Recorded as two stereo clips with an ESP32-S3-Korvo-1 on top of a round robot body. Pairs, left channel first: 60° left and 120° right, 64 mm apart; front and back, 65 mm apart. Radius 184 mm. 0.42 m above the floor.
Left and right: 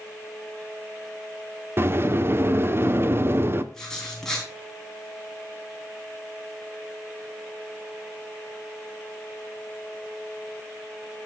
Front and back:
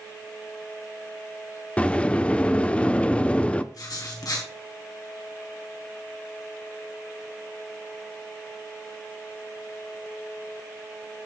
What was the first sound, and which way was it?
A sliding door, 70° right.